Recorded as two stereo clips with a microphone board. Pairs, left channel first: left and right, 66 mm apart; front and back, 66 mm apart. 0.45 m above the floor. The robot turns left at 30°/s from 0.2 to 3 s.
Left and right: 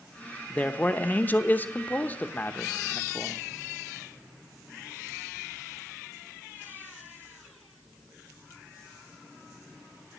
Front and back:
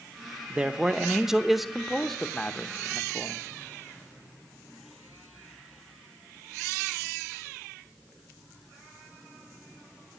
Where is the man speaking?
125° left, 0.7 m; by 3.4 s 50° left, 0.7 m.